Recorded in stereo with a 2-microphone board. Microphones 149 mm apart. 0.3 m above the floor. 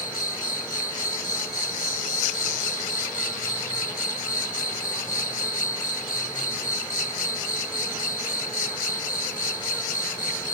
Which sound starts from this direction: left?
An insect, at 0.0 s.